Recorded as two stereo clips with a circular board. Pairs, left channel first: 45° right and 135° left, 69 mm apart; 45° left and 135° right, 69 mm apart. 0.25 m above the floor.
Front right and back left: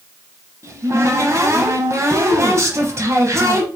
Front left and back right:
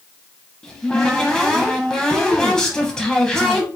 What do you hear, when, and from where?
0.6 s a cupboard door: 120° left, 1.0 m